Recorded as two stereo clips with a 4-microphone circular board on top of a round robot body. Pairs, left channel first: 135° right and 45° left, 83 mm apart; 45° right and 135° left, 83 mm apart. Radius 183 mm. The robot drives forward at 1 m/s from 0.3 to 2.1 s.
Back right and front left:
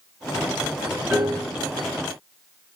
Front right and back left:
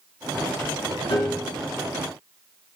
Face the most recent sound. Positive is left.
turn(degrees=-20)